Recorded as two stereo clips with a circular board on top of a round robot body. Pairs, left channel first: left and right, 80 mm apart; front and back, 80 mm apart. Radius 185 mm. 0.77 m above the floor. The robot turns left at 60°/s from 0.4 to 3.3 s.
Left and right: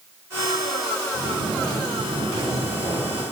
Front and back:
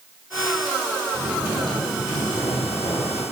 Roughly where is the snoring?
Left.